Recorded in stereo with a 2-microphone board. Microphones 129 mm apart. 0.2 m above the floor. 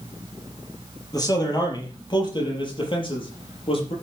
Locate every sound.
1.1 s a man speaking: 30° left (ahead or behind), 5 m; by 3.9 s 45° left (ahead or behind), 5 m